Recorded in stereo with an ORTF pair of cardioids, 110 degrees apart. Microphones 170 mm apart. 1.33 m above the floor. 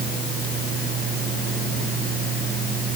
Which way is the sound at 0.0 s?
60° right.